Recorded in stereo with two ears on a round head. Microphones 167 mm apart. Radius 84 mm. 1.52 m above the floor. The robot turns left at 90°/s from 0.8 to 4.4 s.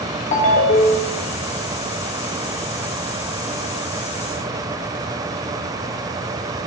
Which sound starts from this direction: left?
A ringtone, at 0.3 s.